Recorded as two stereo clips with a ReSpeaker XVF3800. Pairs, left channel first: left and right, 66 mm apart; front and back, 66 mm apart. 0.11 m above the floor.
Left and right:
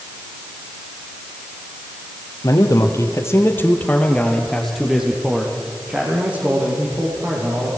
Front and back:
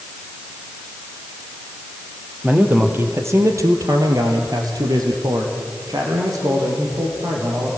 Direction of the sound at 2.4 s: 115° left.